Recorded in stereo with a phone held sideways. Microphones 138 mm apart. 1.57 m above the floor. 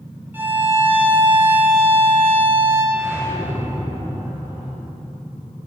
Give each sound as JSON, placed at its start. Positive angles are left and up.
{"t": 0.3, "sound": "a violin", "side_deg": -15, "distance_m": 1.5}
{"t": 2.9, "sound": "a whoosh", "side_deg": -15, "distance_m": 1.7}